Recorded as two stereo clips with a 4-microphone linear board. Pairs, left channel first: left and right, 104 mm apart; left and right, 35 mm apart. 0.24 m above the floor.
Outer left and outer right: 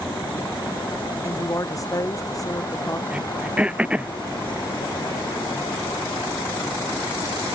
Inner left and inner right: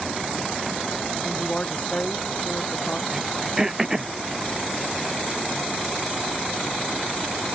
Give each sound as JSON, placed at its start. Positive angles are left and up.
{"t": 1.2, "sound": "a woman speaking", "side_deg": 35}
{"t": 3.1, "sound": "throat clearing", "side_deg": -10}